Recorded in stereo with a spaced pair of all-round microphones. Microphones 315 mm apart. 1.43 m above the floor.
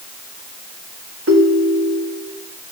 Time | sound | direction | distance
1.3 | a ringtone | 45° right (ahead or behind) | 1.2 m